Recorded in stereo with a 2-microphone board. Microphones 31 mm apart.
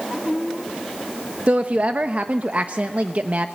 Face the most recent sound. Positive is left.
turn(degrees=-50)  # may be behind; listen again after turning